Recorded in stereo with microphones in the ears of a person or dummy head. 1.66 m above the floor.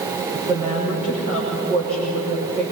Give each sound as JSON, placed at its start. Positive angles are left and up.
{"t": 0.3, "sound": "a woman speaking", "side_deg": -40, "distance_m": 6.0}